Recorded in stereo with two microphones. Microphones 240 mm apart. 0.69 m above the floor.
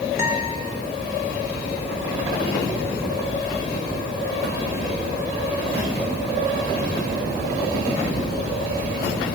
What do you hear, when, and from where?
0.2 s a guitar: 10° right (ahead or behind), 5.5 m